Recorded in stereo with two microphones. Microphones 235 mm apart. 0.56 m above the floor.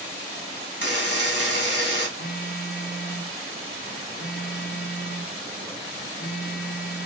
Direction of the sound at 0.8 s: 50° left (ahead or behind).